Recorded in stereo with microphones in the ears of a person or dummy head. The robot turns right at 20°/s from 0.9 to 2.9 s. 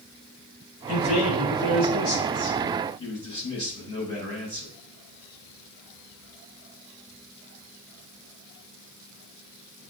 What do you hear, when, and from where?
0.9 s a man speaking: 105° left, 4 m; by 4.7 s 145° left, 4 m